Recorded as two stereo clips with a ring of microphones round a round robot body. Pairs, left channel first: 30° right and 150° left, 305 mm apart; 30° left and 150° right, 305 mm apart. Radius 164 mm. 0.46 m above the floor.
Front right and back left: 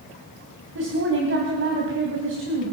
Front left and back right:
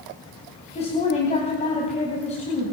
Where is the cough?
I don't hear a cough.